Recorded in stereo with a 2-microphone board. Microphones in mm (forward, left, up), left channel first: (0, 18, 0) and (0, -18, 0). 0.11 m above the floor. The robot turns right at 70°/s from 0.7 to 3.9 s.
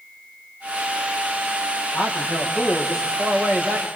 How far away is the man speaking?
About 5 m.